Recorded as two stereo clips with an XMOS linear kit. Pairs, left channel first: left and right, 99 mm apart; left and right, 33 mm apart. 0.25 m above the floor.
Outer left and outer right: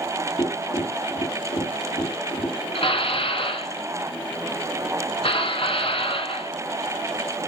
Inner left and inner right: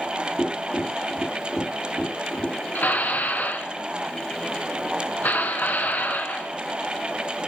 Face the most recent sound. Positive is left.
turn(degrees=65)  # may be behind; listen again after turning